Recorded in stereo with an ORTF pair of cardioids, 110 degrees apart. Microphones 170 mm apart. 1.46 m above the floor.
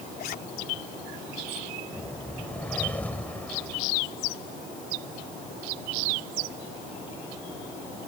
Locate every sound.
0.2 s a zipper: 60° left
1.9 s a whoosh: 10° left